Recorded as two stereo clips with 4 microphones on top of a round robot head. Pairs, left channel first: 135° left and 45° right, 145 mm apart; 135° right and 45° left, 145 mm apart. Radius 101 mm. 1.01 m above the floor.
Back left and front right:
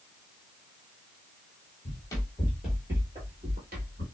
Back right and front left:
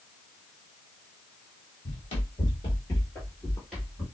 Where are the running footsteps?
175° right, 1.3 m; by 4.0 s 40° right, 1.4 m.